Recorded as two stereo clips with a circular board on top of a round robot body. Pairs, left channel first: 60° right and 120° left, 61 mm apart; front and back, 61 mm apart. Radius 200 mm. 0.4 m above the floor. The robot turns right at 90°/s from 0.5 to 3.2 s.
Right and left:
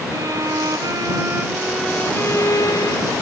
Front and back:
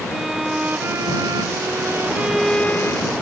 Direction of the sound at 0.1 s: 95° left.